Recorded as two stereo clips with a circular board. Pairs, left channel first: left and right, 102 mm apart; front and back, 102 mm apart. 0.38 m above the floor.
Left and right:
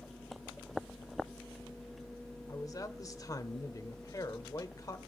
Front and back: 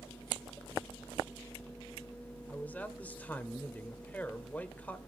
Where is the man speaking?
65° left, 1.0 m.